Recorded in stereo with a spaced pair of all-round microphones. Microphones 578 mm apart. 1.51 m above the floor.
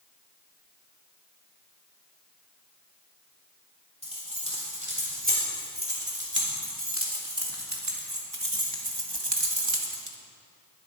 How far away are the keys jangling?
About 4 m.